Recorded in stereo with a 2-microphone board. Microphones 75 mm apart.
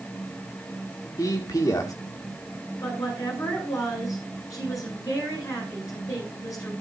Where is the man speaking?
50° left (ahead or behind), 2 m.